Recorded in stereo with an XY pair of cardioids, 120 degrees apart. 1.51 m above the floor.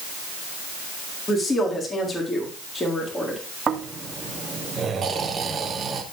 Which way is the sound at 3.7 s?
35° right.